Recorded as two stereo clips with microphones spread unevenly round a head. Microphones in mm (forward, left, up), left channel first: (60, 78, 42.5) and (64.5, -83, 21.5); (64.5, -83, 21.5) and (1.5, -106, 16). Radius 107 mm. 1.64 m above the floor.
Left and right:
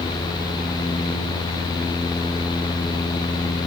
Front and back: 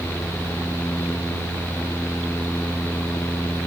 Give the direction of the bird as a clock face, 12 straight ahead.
No bird in this recording.